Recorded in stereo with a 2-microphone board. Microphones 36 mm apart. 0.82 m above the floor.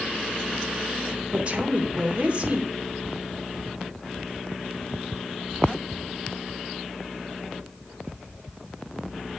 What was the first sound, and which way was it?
A woman speaking, 35° right (ahead or behind).